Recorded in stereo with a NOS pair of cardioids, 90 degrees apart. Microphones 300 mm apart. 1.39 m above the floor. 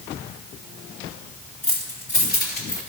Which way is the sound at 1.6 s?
25° left.